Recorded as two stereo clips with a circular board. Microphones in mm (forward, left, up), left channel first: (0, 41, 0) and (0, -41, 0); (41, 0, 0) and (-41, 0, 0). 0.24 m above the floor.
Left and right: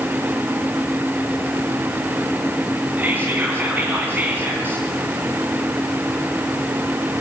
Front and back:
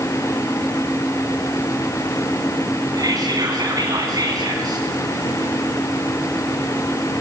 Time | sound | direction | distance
3.0 | whispering | 155° right | 2 m